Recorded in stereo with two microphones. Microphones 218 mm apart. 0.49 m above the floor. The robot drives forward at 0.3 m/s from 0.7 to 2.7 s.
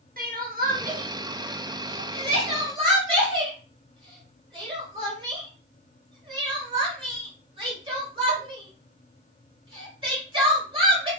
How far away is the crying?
About 0.7 m.